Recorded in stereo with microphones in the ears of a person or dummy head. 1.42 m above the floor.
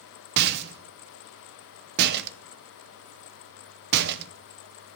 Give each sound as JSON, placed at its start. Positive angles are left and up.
{"t": 0.4, "sound": "a rattle", "side_deg": -60, "distance_m": 0.6}